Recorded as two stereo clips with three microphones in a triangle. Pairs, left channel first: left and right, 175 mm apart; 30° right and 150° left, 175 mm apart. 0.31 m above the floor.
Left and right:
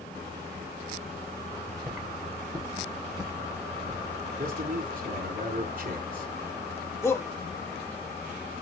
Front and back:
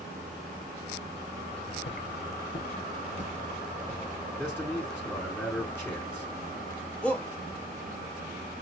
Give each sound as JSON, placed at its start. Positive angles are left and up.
{"t": 1.5, "sound": "footsteps", "azimuth_deg": -15, "distance_m": 2.0}
{"t": 4.4, "sound": "a man speaking", "azimuth_deg": -110, "distance_m": 2.5}
{"t": 7.0, "sound": "a shout", "azimuth_deg": 40, "distance_m": 1.5}